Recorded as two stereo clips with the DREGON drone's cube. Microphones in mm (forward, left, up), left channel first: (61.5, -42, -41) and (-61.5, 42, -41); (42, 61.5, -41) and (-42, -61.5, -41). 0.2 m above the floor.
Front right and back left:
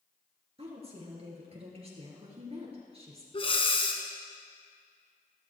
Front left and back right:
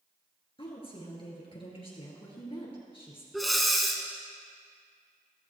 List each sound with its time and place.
0.6 s a woman speaking: 105° left, 3 m
3.3 s breathing: 35° right, 1.2 m